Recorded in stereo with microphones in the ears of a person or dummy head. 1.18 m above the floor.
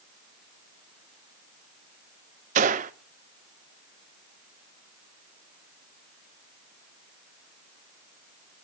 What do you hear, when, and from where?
2.5 s a gunshot: 40° right (ahead or behind), 0.7 m